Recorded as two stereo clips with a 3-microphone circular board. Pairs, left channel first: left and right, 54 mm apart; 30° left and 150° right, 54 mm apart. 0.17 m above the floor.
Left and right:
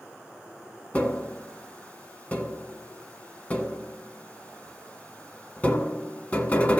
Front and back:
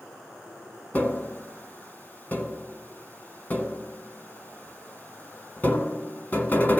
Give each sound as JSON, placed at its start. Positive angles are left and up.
{"t": 0.9, "sound": "tapping", "azimuth_deg": 55, "distance_m": 1.2}